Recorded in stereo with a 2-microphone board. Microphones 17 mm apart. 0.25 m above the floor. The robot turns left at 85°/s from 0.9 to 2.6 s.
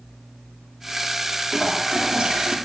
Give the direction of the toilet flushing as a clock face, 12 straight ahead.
1 o'clock.